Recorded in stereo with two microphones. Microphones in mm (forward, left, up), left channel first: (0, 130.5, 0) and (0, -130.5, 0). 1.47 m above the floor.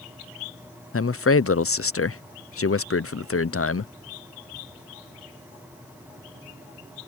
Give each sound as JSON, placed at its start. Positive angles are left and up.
{"t": 0.9, "sound": "a man speaking", "side_deg": 60}